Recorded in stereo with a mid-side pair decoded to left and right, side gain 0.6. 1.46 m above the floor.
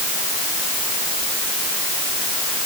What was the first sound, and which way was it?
Only background noise.